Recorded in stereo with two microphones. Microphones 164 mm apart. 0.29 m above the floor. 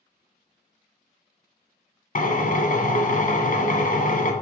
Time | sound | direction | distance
2.1 | a drill | 55° left (ahead or behind) | 1.2 m